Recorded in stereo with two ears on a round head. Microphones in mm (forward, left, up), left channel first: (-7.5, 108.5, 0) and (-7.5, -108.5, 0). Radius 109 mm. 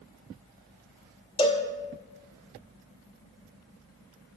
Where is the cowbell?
20° left (ahead or behind), 0.8 m.